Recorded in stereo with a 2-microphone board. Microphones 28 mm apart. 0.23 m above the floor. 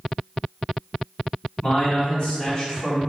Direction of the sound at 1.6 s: 40° left (ahead or behind).